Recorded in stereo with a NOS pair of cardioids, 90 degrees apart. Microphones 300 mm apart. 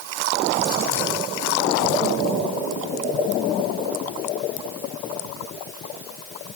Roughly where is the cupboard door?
No cupboard door in this recording.